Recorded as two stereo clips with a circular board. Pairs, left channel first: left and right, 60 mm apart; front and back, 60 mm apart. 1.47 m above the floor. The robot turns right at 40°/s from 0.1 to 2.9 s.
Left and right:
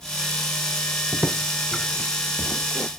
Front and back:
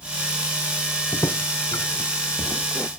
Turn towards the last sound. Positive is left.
turn(degrees=55)